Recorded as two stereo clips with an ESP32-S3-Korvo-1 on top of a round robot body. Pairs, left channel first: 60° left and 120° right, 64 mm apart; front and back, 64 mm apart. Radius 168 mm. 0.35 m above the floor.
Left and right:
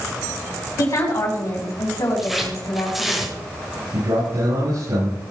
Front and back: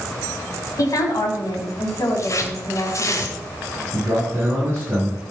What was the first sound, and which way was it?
A woman speaking, 30° left.